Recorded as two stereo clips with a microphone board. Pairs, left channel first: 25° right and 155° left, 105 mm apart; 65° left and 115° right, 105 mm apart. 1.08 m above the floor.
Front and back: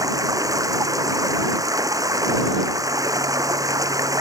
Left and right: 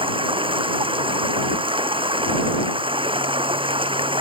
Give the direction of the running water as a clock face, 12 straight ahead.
5 o'clock.